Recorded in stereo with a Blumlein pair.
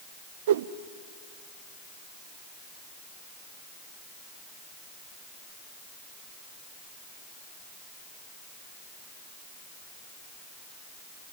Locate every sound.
0.5 s a whoosh: 60° right, 0.7 m